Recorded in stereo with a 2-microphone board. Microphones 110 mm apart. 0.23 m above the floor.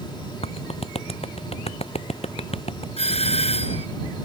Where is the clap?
65° left (ahead or behind).